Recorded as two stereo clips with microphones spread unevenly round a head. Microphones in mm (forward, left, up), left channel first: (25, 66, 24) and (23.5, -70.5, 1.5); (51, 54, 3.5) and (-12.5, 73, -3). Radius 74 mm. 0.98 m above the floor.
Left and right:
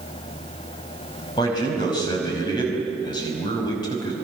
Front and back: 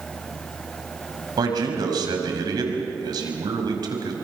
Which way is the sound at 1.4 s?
150° left.